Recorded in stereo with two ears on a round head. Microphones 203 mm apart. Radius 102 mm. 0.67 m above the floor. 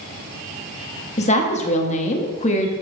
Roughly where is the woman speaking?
Left.